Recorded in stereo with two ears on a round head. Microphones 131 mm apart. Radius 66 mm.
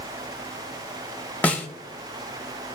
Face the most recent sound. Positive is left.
turn(degrees=10)  # may be behind; listen again after turning